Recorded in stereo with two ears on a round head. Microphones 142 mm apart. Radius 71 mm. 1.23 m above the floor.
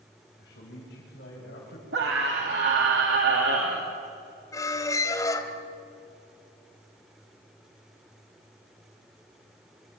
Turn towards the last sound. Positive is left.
turn(degrees=20)  # may be behind; listen again after turning